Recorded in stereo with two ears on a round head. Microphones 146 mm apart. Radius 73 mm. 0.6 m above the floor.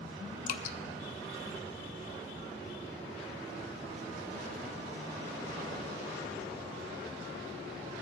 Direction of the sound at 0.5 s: 50° left (ahead or behind).